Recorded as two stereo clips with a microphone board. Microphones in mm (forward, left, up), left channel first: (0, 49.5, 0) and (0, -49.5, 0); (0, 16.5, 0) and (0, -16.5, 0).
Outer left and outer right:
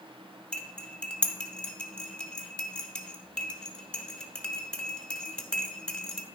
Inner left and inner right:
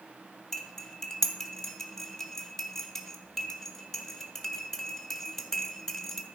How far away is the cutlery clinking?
About 1.0 m.